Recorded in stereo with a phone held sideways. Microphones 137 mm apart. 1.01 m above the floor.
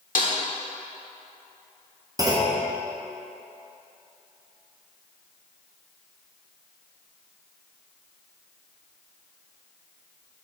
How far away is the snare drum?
About 1.2 m.